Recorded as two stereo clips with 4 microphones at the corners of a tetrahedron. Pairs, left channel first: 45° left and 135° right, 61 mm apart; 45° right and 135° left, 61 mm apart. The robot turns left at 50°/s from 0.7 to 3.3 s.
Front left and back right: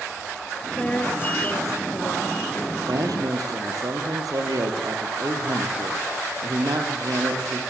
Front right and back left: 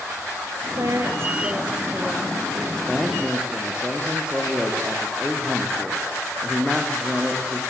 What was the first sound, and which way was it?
A woman speaking, 120° left.